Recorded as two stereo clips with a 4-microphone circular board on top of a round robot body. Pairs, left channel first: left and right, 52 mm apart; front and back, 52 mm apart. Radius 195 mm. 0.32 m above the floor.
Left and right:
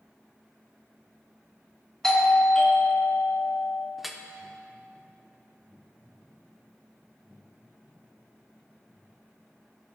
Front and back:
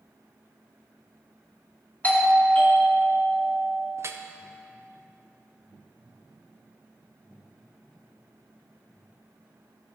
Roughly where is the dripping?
Behind.